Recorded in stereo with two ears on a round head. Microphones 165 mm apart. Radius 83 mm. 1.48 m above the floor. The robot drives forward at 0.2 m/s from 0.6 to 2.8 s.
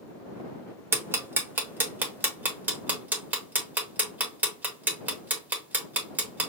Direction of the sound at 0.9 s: 15° right (ahead or behind).